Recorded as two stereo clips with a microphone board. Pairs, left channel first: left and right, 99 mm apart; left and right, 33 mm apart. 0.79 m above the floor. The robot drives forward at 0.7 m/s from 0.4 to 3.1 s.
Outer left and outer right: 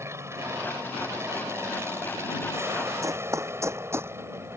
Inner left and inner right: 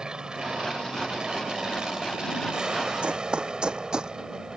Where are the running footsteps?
30° right (ahead or behind); by 4.1 s 25° right (ahead or behind).